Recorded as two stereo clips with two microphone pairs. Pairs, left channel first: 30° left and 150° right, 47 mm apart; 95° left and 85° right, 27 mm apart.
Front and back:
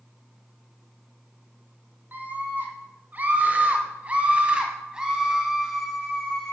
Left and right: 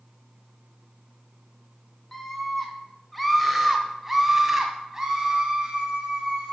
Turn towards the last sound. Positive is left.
turn(degrees=-55)